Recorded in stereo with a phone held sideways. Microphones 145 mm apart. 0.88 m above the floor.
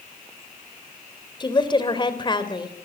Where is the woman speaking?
30° left (ahead or behind), 3 m.